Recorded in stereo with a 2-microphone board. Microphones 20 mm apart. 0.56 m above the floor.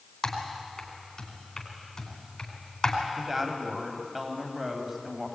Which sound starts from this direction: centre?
A woman speaking, at 3.2 s.